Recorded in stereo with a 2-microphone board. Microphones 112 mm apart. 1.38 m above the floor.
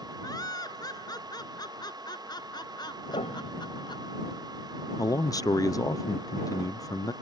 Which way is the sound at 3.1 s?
75° left (ahead or behind).